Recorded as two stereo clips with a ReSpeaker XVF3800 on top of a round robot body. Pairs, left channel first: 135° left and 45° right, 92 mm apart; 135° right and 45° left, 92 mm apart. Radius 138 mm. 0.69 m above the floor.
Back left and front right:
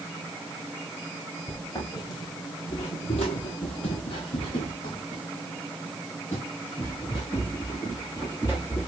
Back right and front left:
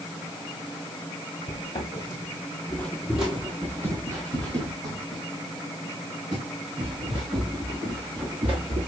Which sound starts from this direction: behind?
Footsteps, at 1.5 s.